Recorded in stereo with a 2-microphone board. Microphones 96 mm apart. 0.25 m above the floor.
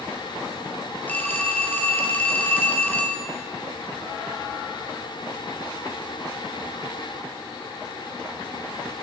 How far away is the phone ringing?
About 3.5 m.